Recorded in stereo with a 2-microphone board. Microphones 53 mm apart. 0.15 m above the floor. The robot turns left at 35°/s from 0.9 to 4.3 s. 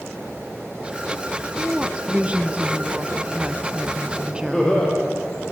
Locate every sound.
1.6 s a woman speaking: 15° right (ahead or behind), 1.1 m; by 5.0 s 20° right (ahead or behind), 1.1 m
4.5 s laughter: 10° left (ahead or behind), 5 m